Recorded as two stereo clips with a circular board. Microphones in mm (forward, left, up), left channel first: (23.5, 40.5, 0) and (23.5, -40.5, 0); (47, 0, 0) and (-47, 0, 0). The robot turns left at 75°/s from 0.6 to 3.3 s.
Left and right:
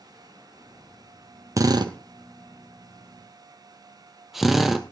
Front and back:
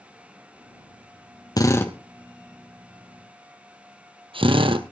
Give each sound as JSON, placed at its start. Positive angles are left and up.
{"t": 1.6, "sound": "a drill", "azimuth_deg": -45, "distance_m": 1.3}